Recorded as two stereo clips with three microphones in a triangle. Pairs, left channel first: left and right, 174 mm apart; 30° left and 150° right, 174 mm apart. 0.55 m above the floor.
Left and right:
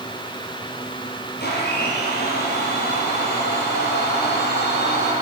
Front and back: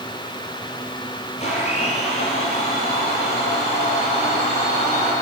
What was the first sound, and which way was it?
A blender, 80° left.